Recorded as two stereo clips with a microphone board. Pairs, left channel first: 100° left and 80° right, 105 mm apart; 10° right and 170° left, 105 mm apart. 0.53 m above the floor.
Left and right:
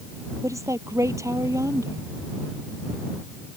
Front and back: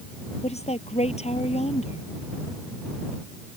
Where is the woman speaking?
20° right.